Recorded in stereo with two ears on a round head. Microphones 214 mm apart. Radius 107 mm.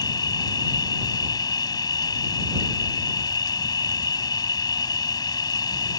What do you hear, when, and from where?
0.0 s an insect: 15° left (ahead or behind)